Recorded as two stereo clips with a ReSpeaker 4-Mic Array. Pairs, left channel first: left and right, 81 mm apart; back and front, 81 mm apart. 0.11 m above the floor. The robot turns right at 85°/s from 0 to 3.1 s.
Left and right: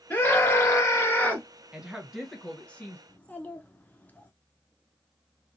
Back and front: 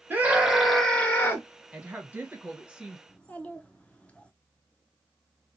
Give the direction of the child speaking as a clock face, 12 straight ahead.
8 o'clock.